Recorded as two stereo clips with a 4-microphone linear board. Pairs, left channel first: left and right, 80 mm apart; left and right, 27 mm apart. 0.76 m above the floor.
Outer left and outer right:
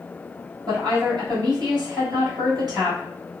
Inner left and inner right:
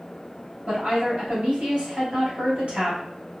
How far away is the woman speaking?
About 1.7 m.